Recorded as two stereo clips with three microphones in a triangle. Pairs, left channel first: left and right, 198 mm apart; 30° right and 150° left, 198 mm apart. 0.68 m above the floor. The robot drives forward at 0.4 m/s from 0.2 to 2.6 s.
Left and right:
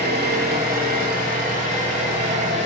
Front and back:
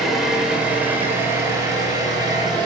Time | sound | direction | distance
0.0 | an engine running | 120° right | 1.7 m